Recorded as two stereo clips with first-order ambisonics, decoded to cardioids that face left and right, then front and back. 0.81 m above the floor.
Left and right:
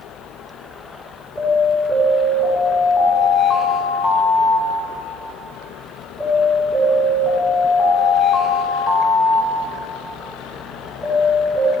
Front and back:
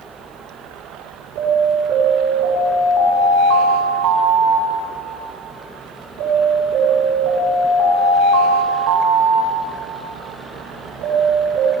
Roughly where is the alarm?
Behind.